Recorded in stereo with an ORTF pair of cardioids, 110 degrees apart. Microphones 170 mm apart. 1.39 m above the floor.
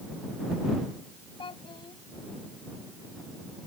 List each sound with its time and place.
1.4 s a child speaking: 30° left